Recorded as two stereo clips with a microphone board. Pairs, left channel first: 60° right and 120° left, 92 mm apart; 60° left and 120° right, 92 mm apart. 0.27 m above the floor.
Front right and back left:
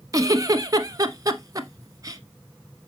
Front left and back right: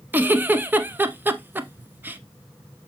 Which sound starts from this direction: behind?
A giggle, at 0.1 s.